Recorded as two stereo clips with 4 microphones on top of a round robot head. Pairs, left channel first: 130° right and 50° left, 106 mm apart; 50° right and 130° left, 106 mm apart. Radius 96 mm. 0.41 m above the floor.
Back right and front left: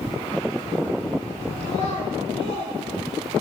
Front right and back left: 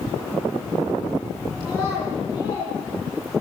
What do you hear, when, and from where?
1.6 s a child speaking: 110° right, 9 m